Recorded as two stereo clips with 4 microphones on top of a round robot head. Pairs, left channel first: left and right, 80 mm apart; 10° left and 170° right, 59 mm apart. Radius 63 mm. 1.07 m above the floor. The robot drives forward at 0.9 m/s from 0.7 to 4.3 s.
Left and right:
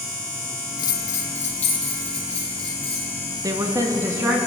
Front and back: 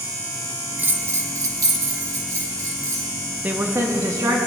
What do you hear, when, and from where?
0.8 s a bell: 125° left, 0.6 m; by 3.1 s 170° left, 2.5 m
3.4 s a woman speaking: 115° right, 0.9 m; by 4.4 s 150° right, 1.4 m